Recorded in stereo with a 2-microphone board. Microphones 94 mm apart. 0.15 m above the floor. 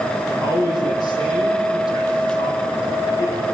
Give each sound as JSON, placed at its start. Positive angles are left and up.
{"t": 0.3, "sound": "a man speaking", "side_deg": 50, "distance_m": 6.5}